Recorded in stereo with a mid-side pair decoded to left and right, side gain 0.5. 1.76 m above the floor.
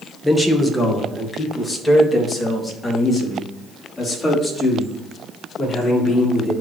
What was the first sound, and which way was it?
A man speaking, 10° left.